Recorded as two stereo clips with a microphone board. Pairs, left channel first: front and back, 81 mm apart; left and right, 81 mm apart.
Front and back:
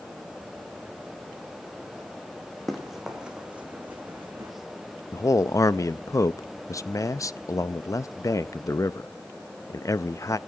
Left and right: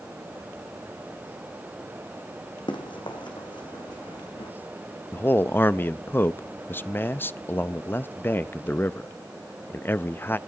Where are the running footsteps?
90° left, 2.5 m; by 4.5 s 120° left, 3 m.